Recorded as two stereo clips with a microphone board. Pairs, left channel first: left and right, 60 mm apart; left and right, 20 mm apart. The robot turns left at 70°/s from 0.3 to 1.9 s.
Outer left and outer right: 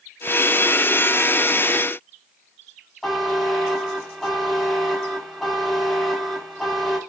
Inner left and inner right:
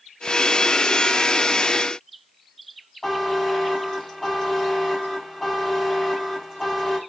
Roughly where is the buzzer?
Centre.